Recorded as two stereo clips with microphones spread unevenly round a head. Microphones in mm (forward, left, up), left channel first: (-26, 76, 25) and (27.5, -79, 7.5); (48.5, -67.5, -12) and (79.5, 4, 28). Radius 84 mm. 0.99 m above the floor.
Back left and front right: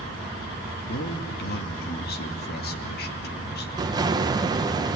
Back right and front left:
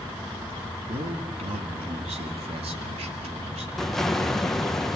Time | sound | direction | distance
0.9 | a man speaking | 80° left | 2 m
3.8 | an explosion | 100° right | 0.9 m